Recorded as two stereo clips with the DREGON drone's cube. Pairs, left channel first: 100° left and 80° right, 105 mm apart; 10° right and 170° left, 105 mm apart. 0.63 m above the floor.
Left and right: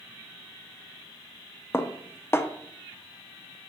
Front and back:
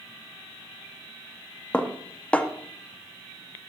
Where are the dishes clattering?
60° left, 0.5 m.